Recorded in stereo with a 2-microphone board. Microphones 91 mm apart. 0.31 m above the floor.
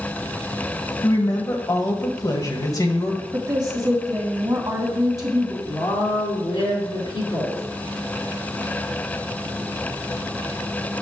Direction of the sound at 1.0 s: 40° left (ahead or behind).